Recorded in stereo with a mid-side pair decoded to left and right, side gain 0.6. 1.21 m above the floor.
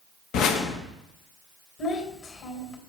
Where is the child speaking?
45° left, 3 m.